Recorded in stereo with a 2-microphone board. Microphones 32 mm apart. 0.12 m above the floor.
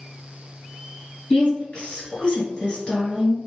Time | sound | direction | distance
1.3 | a woman speaking | 30° left (ahead or behind) | 2.0 m